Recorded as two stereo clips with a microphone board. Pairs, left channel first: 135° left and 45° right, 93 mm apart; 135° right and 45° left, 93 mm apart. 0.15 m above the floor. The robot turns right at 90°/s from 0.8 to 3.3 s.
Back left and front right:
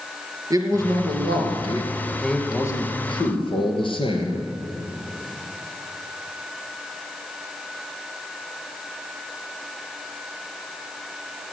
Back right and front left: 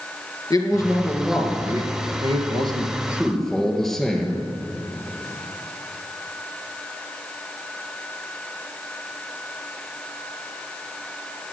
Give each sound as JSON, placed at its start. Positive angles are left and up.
{"t": 0.5, "sound": "a man speaking", "azimuth_deg": -90, "distance_m": 3.0}